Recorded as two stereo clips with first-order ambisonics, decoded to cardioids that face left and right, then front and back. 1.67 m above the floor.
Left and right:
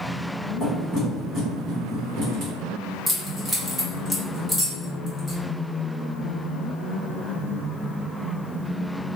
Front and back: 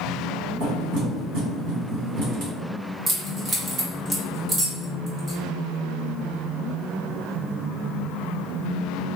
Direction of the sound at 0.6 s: 165° right.